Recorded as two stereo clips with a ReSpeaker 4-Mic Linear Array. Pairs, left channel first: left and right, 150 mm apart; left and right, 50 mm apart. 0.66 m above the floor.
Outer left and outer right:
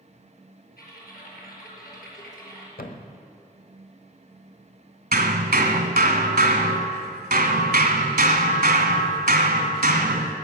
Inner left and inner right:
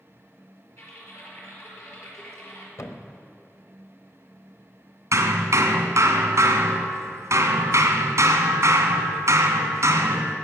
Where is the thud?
75° left (ahead or behind), 1.1 m.